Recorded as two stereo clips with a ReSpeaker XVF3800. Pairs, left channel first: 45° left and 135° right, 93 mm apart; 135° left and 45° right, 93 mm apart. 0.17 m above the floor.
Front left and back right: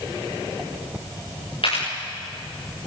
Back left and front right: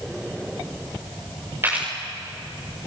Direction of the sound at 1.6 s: 20° left.